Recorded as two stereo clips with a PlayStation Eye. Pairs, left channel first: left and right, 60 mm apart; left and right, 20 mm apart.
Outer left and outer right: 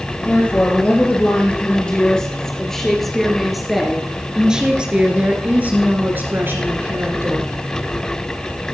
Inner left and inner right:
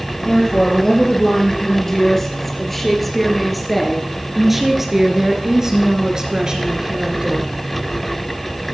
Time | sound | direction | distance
0.2 | a woman speaking | 25° left (ahead or behind) | 3.5 m